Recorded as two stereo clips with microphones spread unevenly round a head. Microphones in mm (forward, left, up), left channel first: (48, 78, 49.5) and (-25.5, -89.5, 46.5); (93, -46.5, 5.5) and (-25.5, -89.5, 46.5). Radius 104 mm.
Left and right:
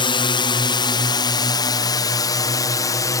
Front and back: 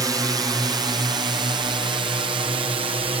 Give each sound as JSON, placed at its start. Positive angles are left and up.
{"t": 0.0, "sound": "a drone", "azimuth_deg": 125}